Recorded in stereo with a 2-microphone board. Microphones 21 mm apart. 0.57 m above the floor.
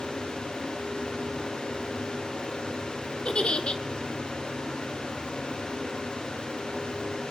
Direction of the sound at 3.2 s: 50° left (ahead or behind).